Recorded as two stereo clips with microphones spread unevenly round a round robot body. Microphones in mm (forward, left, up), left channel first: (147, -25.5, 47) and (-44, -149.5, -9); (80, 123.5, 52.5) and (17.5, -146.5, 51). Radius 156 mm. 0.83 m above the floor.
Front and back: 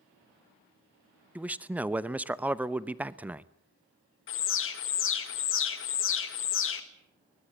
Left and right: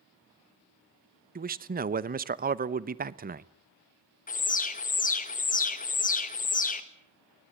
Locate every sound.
1.4 s a man speaking: 95° right, 0.8 m
4.3 s an alarm: 30° left, 1.8 m